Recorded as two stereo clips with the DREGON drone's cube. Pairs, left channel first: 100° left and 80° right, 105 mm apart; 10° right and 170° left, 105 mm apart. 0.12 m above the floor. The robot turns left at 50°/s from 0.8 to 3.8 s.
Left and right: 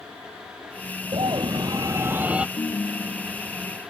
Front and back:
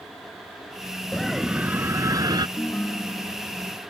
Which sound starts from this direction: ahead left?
A ringtone, at 2.6 s.